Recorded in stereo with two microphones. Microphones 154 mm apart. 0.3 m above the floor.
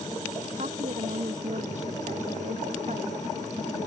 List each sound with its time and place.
0.6 s a woman speaking: 50° right (ahead or behind)